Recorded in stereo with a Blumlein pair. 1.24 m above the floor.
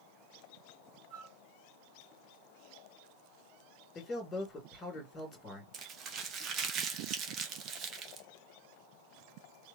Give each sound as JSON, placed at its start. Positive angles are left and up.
{"t": 1.1, "sound": "a flute", "azimuth_deg": -30, "distance_m": 1.8}
{"t": 4.0, "sound": "a man speaking", "azimuth_deg": 15, "distance_m": 2.0}
{"t": 5.7, "sound": "crumpling", "azimuth_deg": -30, "distance_m": 0.9}